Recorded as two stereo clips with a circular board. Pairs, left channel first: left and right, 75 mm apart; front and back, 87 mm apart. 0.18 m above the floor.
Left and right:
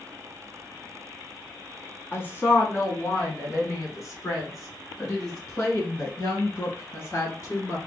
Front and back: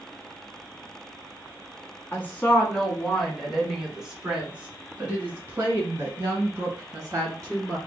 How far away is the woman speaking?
About 1.9 m.